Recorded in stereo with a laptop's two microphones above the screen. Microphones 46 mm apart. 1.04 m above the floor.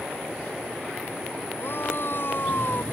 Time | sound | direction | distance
1.6 | a shout | 55° left (ahead or behind) | ?